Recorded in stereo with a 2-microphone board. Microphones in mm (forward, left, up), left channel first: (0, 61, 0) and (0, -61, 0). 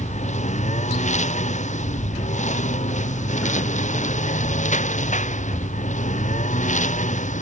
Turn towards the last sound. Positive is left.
turn(degrees=85)